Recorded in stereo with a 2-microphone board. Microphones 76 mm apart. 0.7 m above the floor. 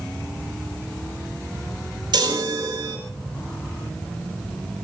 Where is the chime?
65° right (ahead or behind), 3.5 m.